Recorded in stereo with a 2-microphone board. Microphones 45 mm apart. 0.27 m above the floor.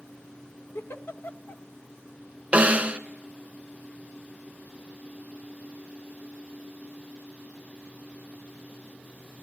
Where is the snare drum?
30° right (ahead or behind), 0.6 m.